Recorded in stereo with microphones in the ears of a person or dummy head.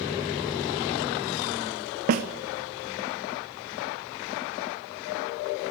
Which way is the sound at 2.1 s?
45° right (ahead or behind).